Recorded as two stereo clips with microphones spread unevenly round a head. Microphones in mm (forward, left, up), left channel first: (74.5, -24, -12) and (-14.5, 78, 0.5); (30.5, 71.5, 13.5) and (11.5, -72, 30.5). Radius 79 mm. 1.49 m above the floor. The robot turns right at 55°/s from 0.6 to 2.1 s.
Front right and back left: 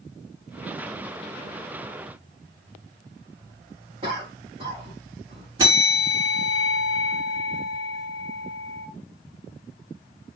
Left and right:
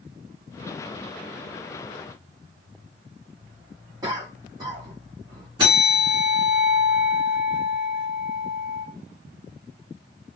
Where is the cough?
170° right, 2.5 m.